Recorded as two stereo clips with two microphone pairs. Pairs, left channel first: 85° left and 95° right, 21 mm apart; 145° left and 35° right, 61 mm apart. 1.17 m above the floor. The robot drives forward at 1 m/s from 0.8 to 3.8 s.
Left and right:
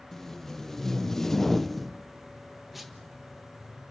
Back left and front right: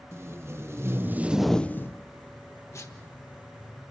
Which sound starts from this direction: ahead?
Tape being pulled, at 0.1 s.